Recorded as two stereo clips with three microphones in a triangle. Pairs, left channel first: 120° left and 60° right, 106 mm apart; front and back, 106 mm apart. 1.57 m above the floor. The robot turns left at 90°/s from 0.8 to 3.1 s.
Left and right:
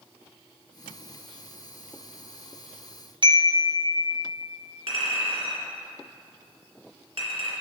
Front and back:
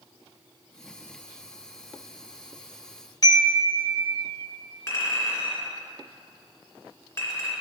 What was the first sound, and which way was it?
A chime, 40° right.